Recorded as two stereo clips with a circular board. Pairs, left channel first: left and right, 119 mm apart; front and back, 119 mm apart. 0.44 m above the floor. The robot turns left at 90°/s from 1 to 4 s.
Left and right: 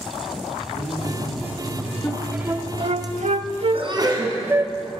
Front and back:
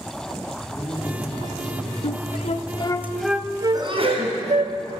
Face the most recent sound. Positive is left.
turn(degrees=-145)